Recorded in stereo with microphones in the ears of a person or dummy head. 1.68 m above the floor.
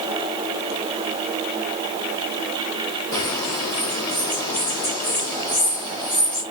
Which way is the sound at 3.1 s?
20° left (ahead or behind).